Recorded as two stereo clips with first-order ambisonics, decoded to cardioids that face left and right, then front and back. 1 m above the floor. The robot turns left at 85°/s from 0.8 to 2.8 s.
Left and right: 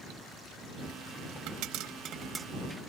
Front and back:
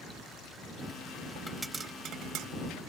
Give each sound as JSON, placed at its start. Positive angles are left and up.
{"t": 1.5, "sound": "a pop", "azimuth_deg": -80}